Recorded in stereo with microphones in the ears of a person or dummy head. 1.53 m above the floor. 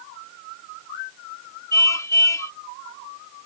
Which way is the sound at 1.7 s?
25° left (ahead or behind).